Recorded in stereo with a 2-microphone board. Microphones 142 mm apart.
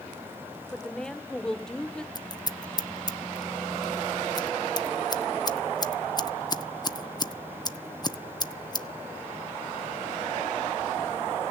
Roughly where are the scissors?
Left.